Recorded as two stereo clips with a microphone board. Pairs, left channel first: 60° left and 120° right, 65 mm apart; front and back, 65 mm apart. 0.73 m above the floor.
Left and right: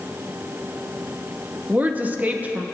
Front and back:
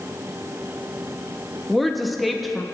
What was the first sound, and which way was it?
A woman speaking, 90° right.